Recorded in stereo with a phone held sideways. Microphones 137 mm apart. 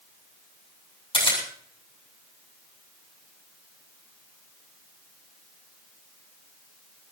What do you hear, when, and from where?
1.1 s a camera shutter: 40° left (ahead or behind), 7.5 m